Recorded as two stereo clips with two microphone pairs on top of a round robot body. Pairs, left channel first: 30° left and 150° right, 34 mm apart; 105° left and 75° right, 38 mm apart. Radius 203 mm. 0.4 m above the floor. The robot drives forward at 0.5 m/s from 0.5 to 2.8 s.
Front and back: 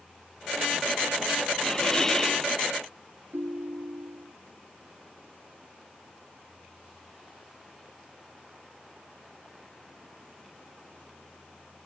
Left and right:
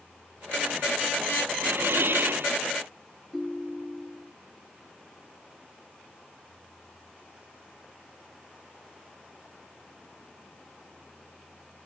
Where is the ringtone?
165° right.